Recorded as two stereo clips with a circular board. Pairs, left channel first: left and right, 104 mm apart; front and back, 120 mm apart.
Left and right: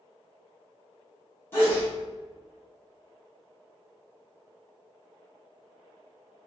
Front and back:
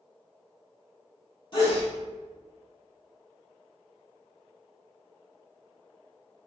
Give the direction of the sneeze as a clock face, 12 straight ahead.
11 o'clock.